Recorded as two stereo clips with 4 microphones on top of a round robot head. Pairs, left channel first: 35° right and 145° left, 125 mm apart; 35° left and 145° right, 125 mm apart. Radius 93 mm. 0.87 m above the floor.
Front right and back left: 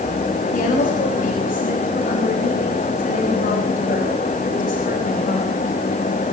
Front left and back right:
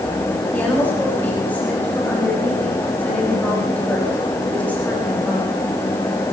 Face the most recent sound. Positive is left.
turn(degrees=-45)